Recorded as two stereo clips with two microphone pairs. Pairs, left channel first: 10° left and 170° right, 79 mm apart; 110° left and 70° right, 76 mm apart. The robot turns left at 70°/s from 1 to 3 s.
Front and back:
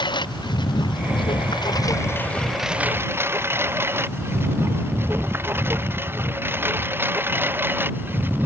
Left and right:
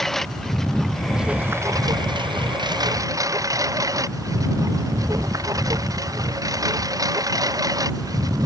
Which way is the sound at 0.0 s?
25° left.